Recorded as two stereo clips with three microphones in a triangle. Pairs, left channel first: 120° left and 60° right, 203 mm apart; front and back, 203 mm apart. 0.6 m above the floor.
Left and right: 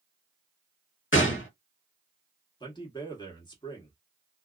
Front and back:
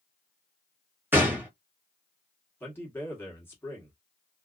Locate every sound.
1.1 s a gunshot: 100° left, 0.9 m
2.6 s a man speaking: 70° left, 1.3 m